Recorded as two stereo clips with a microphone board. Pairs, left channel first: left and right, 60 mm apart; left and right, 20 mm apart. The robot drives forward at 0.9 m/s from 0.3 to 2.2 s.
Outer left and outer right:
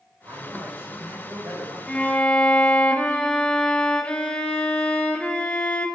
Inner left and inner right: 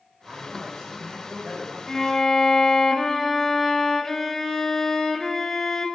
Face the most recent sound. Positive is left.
turn(degrees=20)  # may be behind; listen again after turning